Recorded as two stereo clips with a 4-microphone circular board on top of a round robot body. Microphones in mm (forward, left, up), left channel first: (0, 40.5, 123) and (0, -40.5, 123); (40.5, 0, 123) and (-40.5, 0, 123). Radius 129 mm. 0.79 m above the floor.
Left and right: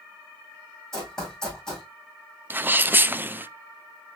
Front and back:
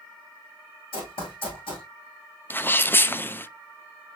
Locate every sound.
0.9 s running footsteps: 5° left, 2.5 m
2.5 s a sneeze: 45° right, 0.6 m